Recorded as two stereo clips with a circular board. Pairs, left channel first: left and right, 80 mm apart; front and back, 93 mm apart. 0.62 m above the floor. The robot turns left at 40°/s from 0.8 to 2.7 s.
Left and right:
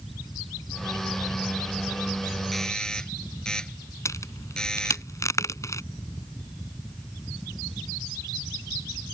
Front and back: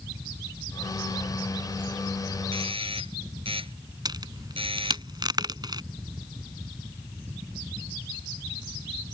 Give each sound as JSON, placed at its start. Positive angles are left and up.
{"t": 2.5, "sound": "a doorbell", "azimuth_deg": 180}
{"t": 4.0, "sound": "a crack", "azimuth_deg": 140}